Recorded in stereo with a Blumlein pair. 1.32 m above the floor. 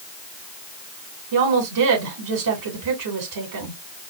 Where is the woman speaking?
50° right, 2.5 m.